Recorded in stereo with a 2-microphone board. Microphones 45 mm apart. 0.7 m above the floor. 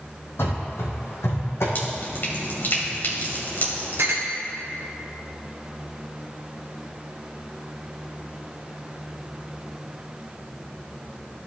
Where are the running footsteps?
65° left (ahead or behind), 2.5 m; by 1.6 s 70° left (ahead or behind), 2.5 m.